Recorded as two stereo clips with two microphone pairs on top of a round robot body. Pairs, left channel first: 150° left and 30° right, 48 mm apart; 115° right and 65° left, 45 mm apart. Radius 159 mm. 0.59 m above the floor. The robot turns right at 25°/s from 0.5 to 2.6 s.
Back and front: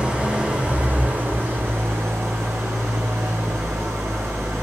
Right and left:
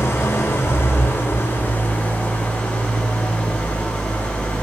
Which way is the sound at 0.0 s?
95° right.